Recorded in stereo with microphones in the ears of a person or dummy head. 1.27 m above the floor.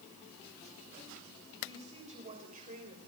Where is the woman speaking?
35° right (ahead or behind), 7.5 m; by 3.0 s 50° right (ahead or behind), 6 m.